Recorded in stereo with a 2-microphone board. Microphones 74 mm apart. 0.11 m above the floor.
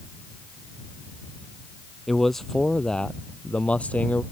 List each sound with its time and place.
2.1 s a man speaking: centre (ahead or behind); by 4.2 s 20° left (ahead or behind)